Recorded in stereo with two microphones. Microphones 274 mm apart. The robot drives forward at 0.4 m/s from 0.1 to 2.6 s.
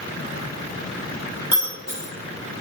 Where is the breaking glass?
60° right (ahead or behind), 3 m; by 2.1 s 55° right (ahead or behind), 3 m.